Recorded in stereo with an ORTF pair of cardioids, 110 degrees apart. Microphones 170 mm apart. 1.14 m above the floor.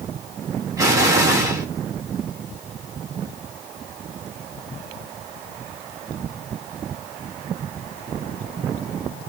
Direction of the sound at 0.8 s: 20° right.